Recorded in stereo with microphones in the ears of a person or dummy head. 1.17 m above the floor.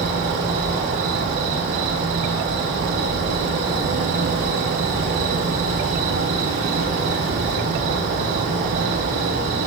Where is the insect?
40° right (ahead or behind), 1.4 m.